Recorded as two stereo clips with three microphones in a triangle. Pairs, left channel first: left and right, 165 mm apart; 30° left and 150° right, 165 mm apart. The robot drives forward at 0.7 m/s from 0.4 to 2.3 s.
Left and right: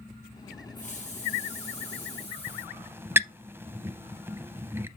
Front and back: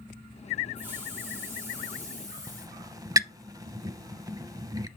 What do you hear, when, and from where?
0.8 s a hiss: 130° left, 4 m; by 2.8 s 140° left, 4.5 m
2.5 s a squeak: 140° right, 0.5 m